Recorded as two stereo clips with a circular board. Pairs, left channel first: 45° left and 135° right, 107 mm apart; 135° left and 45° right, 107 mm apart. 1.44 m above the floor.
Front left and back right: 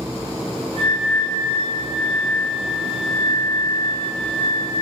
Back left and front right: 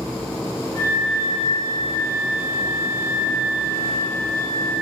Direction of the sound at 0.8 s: 165° right.